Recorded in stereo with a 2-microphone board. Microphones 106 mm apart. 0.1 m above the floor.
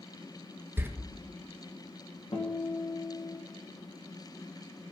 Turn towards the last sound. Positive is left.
turn(degrees=55)  # may be behind; listen again after turning